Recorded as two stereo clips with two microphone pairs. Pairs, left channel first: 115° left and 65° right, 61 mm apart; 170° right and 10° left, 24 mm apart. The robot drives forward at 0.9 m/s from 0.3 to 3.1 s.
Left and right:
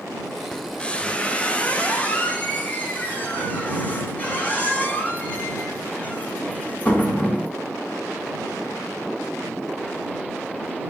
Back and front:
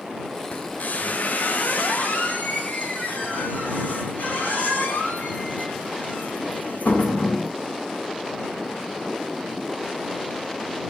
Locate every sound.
0.5 s a squeak: 165° right, 1.2 m; by 7.5 s 175° right, 3.5 m